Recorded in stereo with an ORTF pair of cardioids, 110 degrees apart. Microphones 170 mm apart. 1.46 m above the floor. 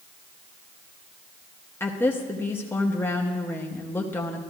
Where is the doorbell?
I don't hear a doorbell.